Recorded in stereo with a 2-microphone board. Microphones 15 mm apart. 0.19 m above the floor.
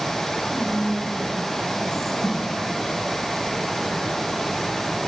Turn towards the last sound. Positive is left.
turn(degrees=40)  # may be behind; listen again after turning